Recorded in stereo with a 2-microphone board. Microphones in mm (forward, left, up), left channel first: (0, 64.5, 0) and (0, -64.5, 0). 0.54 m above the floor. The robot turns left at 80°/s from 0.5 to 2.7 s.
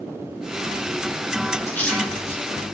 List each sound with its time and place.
1.7 s a splash: 25° left (ahead or behind), 3.5 m; by 2.4 s 40° right (ahead or behind), 3.5 m